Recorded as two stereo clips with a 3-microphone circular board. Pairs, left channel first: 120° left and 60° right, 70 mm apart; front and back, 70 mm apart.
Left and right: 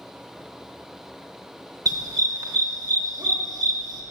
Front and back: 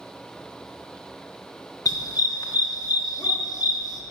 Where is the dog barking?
30° right, 0.8 m.